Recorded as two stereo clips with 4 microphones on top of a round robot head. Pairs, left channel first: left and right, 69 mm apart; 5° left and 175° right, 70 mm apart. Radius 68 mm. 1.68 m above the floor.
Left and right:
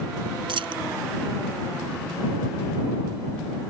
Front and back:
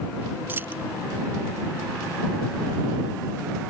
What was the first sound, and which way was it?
A dropped coin, 105° right.